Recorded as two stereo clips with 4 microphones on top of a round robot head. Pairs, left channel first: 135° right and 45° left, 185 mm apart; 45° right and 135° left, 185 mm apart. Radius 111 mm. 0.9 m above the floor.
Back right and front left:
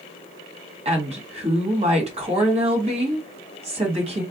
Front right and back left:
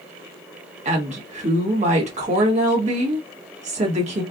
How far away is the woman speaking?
About 1.4 m.